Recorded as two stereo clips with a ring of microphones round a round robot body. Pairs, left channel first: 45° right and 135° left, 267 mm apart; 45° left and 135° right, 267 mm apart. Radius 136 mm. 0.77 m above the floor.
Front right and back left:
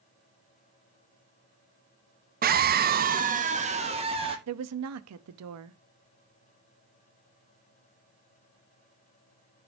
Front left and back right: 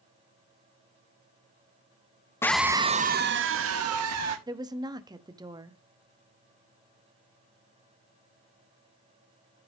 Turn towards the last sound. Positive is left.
turn(degrees=150)